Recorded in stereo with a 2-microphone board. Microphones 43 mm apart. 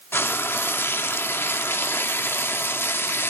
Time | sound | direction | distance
0.1 | frying | 65° left (ahead or behind) | 0.6 m